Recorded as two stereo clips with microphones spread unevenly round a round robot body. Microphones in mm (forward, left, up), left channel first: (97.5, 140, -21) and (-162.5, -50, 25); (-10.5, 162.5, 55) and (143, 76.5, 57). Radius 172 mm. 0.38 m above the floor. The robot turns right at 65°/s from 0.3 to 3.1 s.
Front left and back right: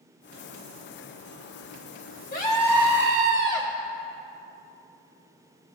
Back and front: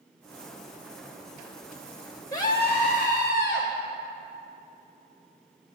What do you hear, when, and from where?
2.3 s a scream: 85° left, 1.6 m; by 3.7 s 135° left, 1.6 m